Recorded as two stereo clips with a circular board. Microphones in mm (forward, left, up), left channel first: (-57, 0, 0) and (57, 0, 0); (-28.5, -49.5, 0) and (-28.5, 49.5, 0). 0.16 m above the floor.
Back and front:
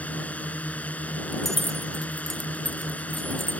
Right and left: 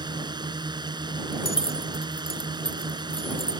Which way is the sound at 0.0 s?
105° left.